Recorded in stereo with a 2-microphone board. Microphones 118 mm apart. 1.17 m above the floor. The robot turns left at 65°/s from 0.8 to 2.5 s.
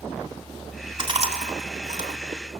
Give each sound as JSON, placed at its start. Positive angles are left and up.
{"t": 1.0, "sound": "chewing", "side_deg": -45, "distance_m": 3.5}